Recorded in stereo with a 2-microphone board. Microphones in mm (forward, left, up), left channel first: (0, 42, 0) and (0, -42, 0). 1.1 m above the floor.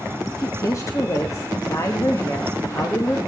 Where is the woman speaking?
40° left (ahead or behind), 1.1 m.